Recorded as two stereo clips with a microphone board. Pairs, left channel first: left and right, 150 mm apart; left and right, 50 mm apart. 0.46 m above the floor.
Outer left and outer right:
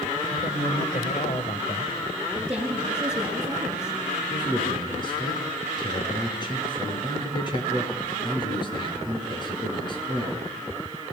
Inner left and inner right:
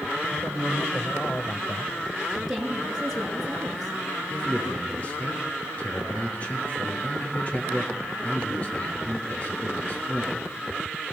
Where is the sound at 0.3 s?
45° left (ahead or behind), 2.5 m.